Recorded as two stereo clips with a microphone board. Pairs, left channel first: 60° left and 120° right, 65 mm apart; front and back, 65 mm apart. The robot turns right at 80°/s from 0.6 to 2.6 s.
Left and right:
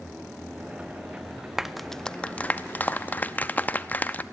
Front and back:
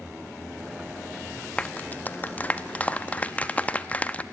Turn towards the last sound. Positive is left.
turn(degrees=35)